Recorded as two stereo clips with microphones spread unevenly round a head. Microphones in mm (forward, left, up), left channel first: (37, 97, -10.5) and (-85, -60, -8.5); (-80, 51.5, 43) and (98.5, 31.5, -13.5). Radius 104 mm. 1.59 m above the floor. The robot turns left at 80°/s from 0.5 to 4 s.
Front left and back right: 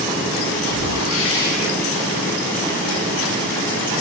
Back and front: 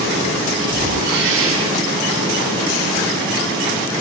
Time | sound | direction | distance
0.7 | a whoosh | 65° left | 5.5 m